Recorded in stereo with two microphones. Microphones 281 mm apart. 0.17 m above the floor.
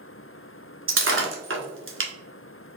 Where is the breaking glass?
45° right (ahead or behind), 0.9 m.